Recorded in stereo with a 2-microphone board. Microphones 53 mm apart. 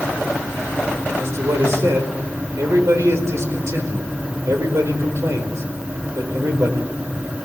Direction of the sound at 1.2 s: 65° right (ahead or behind).